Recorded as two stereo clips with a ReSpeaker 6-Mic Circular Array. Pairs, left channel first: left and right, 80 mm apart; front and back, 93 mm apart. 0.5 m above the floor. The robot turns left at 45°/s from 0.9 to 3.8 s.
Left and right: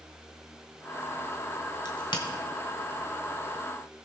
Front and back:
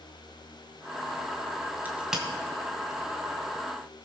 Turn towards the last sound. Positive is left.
turn(degrees=20)